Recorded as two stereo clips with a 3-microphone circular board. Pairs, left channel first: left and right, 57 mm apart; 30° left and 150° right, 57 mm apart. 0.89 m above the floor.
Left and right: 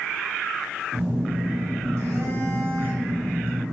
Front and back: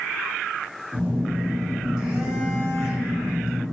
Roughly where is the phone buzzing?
Right.